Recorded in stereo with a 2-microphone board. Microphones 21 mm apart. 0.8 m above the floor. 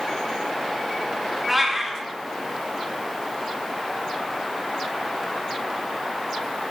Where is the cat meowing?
5° right (ahead or behind), 0.7 m.